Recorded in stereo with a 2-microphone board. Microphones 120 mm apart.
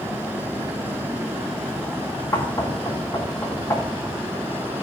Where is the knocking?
30° left (ahead or behind), 1.7 m.